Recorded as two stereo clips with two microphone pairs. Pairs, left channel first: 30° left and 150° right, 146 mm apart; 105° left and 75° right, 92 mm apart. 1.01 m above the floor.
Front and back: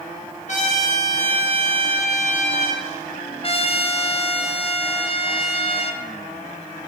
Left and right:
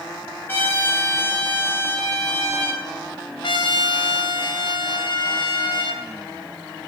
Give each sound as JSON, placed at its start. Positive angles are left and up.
{"t": 0.5, "sound": "a trumpet", "azimuth_deg": 45, "distance_m": 1.2}
{"t": 3.4, "sound": "a trumpet", "azimuth_deg": 80, "distance_m": 0.6}